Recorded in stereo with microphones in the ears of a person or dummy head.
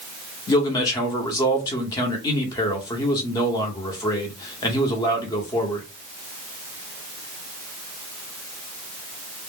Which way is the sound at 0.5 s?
20° left (ahead or behind).